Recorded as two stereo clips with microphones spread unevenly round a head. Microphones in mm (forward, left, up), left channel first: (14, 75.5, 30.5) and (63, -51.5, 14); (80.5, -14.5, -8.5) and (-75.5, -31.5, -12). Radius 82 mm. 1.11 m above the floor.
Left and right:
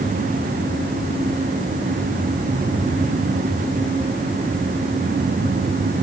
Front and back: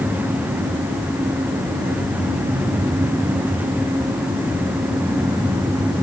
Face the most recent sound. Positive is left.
No sound to turn to.